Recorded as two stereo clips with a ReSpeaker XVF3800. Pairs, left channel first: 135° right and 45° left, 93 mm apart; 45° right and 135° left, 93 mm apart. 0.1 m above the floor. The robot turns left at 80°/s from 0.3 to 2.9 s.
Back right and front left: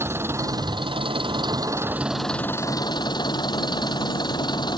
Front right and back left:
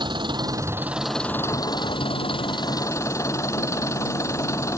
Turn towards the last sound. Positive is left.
turn(degrees=-100)